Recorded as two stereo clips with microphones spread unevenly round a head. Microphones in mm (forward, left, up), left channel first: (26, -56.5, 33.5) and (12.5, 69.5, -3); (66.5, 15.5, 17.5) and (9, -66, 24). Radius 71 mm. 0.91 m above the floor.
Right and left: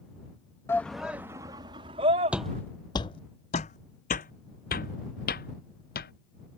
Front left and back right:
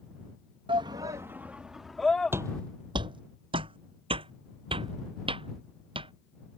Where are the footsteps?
160° right; by 6.1 s 95° right.